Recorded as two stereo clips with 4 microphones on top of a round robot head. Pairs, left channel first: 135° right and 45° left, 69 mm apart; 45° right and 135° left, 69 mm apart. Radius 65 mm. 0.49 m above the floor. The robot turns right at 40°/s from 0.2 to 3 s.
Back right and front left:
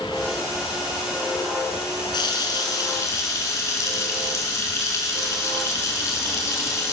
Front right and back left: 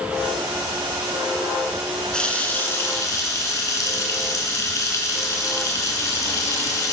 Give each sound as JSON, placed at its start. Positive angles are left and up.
{"t": 2.1, "sound": "a running tap", "azimuth_deg": -125, "distance_m": 4.5}